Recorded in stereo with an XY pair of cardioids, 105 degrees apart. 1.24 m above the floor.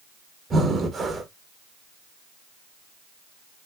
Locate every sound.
0.5 s breathing: 45° right, 1.2 m